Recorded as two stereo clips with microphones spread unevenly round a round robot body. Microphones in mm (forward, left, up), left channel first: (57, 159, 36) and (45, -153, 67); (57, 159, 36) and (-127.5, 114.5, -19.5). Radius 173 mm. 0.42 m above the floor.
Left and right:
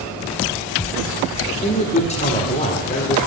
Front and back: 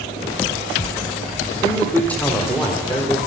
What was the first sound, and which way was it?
A man speaking, 120° left.